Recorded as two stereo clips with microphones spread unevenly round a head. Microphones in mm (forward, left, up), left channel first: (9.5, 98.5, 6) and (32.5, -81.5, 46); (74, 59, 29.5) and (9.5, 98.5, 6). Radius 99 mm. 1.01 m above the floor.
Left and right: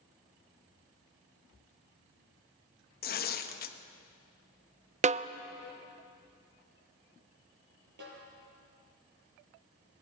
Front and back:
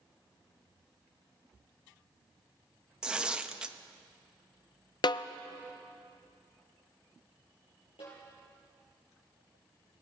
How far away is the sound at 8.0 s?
About 9.5 m.